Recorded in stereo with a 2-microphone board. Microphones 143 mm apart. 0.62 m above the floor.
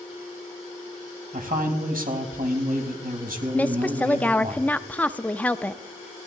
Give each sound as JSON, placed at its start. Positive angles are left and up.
{"t": 1.3, "sound": "a man speaking", "side_deg": -75, "distance_m": 3.5}
{"t": 3.5, "sound": "a woman speaking", "side_deg": 10, "distance_m": 0.5}